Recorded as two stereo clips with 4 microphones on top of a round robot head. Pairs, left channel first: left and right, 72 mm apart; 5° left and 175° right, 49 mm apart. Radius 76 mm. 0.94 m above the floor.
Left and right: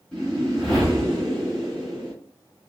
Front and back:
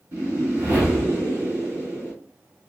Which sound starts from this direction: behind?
A whoosh, at 0.1 s.